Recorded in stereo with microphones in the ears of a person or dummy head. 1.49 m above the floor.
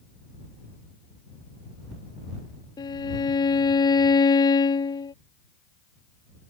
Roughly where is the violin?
Left.